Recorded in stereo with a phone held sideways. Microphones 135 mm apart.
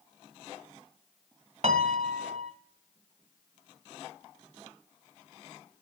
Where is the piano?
55° right (ahead or behind), 1.5 m.